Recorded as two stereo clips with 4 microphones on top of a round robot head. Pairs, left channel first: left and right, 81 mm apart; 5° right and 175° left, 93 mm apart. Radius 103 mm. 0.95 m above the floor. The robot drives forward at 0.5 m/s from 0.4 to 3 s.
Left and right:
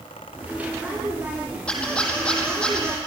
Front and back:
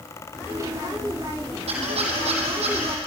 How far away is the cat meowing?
No cat meowing in this recording.